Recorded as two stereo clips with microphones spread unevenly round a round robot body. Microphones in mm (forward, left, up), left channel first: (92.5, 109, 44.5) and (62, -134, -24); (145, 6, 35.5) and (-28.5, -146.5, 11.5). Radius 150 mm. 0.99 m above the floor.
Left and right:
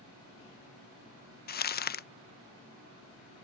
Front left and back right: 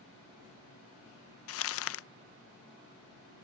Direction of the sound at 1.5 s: 25° left.